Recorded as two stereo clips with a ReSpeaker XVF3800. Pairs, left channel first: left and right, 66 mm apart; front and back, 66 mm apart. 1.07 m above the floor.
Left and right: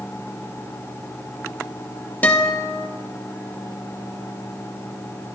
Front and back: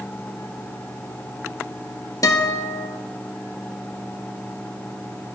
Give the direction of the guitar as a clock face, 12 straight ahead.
11 o'clock.